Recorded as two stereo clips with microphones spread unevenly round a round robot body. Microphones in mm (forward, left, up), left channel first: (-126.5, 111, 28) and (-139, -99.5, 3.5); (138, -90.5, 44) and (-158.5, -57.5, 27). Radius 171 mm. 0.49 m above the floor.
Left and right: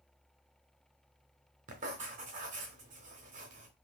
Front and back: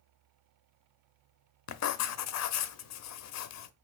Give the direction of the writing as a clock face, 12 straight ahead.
1 o'clock.